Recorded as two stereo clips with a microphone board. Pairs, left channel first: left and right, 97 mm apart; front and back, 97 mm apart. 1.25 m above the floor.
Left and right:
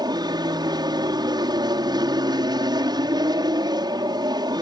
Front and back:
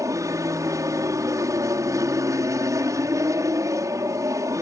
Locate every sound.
0.0 s an aircraft: 125° right